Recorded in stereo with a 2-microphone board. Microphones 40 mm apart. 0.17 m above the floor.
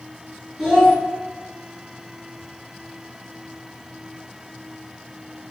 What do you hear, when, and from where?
0.6 s a child speaking: 10° right (ahead or behind), 1.7 m